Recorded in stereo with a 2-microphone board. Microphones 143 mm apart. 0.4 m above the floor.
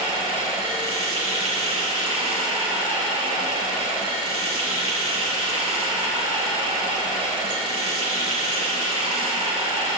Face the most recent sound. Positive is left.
turn(degrees=-35)  # may be behind; listen again after turning